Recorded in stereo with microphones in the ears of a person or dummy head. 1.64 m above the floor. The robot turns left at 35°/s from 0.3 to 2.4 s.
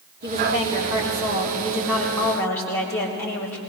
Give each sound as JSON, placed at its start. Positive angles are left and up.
{"t": 0.2, "sound": "a woman speaking", "azimuth_deg": -120, "distance_m": 3.5}